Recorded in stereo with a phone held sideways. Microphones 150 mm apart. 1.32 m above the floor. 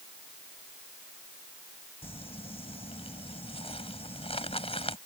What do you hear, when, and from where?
2.0 s crumpling: 40° left (ahead or behind)